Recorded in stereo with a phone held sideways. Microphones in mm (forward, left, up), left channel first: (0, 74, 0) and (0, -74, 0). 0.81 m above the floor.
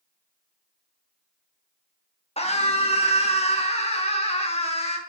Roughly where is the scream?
Left.